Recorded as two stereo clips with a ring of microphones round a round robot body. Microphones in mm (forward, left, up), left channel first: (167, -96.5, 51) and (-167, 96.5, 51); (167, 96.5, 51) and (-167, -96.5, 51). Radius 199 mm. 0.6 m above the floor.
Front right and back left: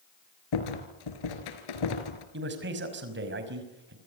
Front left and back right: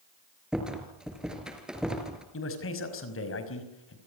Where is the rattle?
60° right, 3.5 m.